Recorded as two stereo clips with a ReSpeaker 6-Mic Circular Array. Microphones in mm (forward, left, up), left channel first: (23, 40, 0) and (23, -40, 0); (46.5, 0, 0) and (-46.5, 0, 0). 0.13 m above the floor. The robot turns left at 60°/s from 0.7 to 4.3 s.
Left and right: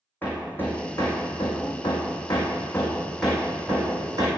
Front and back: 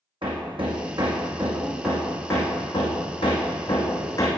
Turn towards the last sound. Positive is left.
turn(degrees=-60)